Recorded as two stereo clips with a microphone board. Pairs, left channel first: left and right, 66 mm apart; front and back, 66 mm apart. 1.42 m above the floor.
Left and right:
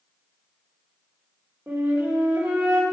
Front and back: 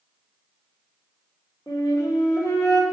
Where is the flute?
25° right, 2.5 m.